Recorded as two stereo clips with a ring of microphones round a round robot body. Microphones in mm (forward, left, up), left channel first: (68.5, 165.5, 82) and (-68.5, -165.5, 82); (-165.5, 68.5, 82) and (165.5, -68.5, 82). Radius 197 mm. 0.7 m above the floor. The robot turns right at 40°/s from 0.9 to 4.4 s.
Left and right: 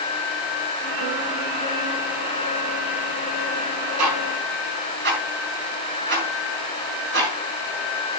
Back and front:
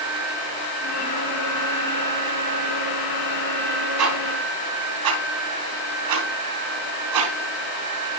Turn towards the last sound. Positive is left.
turn(degrees=-50)